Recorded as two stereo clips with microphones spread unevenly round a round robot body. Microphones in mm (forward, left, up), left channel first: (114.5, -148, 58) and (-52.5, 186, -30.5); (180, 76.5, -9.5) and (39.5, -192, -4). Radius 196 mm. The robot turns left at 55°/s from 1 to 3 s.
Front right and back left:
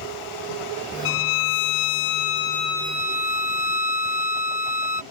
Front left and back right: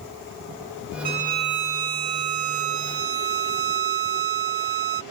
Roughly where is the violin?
Ahead right.